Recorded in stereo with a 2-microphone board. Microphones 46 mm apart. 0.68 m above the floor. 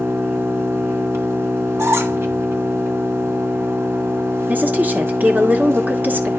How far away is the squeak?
About 1.4 m.